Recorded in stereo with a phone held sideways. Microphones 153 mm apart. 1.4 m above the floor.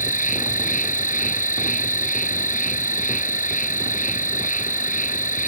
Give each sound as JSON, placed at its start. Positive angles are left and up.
{"t": 0.0, "sound": "an insect", "side_deg": 55}